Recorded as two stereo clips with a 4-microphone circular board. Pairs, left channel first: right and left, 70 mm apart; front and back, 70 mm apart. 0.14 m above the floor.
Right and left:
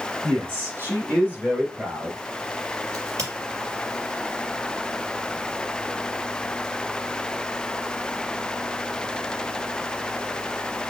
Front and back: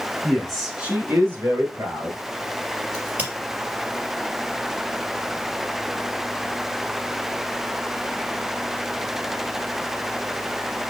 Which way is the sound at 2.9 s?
120° left.